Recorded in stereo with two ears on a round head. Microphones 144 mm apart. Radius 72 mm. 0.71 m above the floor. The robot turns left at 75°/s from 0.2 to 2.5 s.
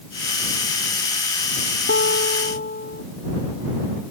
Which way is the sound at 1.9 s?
105° left.